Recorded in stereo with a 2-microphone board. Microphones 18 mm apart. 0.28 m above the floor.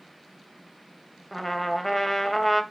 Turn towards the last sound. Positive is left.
turn(degrees=10)  # may be behind; listen again after turning